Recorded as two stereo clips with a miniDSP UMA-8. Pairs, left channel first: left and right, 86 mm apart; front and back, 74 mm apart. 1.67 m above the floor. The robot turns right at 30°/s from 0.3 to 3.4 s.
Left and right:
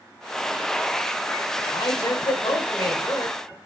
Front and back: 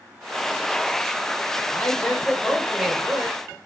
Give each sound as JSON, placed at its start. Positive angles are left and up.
{"t": 1.7, "sound": "a man speaking", "azimuth_deg": 70, "distance_m": 1.3}